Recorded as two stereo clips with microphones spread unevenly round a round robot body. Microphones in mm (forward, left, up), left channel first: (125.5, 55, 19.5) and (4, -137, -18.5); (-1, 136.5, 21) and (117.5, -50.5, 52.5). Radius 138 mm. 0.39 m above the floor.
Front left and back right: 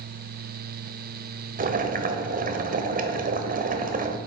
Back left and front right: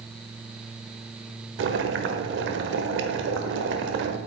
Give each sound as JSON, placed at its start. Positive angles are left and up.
{"t": 1.6, "sound": "boiling", "azimuth_deg": -90, "distance_m": 1.2}